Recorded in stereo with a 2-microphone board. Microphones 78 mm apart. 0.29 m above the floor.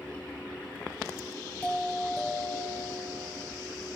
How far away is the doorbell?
About 2.5 m.